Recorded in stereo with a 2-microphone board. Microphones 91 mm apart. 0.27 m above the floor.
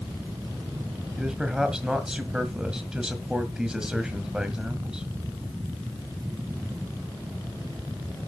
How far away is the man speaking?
About 1.9 m.